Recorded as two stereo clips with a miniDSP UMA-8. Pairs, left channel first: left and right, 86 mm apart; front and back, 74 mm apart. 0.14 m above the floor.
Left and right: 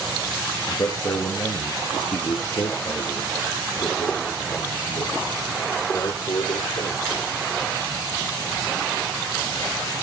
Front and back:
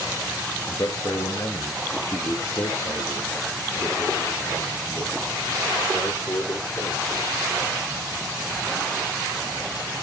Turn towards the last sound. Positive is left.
turn(degrees=55)